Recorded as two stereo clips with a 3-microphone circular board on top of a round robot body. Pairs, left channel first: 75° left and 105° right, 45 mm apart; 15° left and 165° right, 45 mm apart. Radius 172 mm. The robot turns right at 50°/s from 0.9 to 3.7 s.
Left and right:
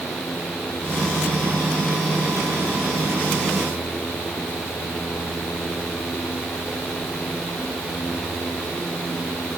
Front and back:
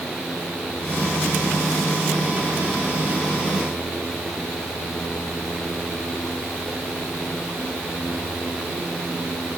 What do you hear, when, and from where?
Only background noise.